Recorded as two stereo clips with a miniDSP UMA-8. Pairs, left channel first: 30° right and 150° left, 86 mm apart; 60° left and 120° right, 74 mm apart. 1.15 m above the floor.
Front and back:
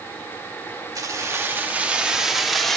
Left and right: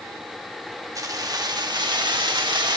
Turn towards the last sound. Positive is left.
turn(degrees=-115)